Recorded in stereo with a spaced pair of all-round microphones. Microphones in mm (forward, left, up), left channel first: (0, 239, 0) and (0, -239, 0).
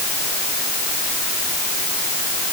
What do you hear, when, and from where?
Only background noise.